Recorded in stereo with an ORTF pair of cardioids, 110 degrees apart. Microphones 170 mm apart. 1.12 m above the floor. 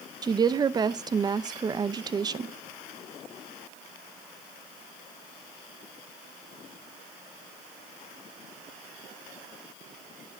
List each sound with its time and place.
0.2 s a woman speaking: 25° right, 0.6 m